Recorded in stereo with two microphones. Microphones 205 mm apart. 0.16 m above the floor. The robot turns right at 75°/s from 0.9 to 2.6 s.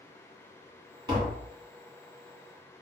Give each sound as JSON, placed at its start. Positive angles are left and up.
{"t": 1.1, "sound": "tapping", "side_deg": -25, "distance_m": 1.2}